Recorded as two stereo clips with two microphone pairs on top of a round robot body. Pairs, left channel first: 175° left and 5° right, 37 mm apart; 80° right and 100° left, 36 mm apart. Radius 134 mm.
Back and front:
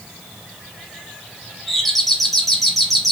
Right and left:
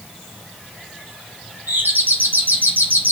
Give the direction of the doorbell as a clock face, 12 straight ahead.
9 o'clock.